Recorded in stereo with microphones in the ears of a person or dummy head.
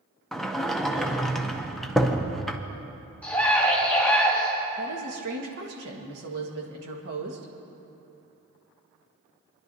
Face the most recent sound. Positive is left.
turn(degrees=-60)  # may be behind; listen again after turning